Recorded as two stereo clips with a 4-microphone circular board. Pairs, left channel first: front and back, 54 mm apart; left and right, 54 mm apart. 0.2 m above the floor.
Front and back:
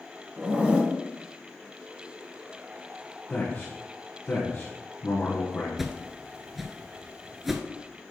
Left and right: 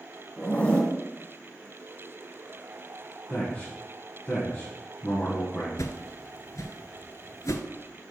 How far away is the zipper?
About 1.6 m.